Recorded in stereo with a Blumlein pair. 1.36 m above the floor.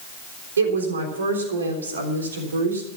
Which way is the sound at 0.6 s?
70° right.